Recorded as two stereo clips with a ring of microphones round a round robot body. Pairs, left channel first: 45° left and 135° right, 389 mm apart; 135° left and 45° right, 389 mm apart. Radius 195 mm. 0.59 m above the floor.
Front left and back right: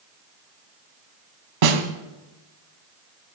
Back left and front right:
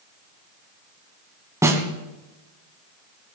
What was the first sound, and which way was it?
A snare drum, 130° right.